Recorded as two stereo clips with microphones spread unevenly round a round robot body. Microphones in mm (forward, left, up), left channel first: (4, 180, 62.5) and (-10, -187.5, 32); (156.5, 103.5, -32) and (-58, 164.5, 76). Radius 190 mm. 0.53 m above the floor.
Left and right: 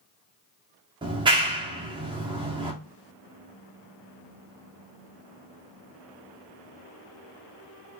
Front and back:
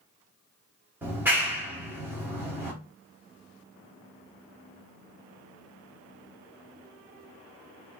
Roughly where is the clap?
Ahead right.